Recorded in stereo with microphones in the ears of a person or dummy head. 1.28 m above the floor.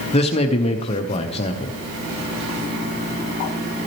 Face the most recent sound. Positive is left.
turn(degrees=30)  # may be behind; listen again after turning